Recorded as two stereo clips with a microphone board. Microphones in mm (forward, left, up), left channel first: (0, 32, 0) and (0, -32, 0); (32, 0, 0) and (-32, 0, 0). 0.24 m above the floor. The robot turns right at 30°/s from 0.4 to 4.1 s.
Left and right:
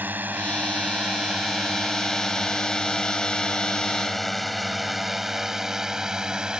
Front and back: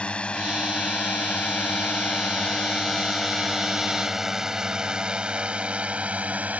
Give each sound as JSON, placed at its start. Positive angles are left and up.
{"t": 0.0, "sound": "a drone", "azimuth_deg": -60}